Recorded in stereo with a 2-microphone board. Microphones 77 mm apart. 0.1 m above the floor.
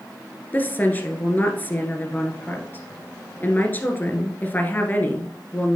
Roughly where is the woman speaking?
Left.